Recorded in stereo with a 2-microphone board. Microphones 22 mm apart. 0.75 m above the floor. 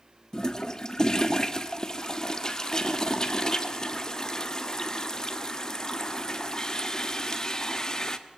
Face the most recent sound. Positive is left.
turn(degrees=30)  # may be behind; listen again after turning